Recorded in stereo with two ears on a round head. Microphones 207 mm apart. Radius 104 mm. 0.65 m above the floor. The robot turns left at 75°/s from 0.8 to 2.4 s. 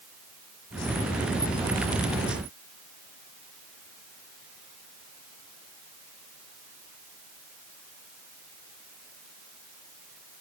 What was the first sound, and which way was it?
Only background noise.